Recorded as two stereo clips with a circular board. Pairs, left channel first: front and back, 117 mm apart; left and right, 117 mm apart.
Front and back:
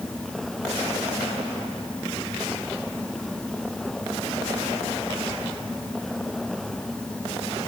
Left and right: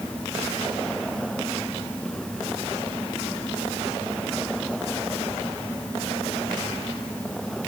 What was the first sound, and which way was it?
Only background noise.